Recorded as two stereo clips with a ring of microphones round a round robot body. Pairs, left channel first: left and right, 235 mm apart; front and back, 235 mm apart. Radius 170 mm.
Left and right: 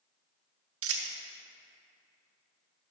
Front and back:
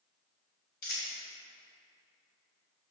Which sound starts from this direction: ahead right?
A dropped coin, at 0.8 s.